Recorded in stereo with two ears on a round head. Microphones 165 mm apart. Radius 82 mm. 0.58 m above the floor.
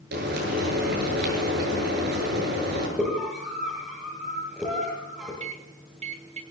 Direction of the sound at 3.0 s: 10° right (ahead or behind).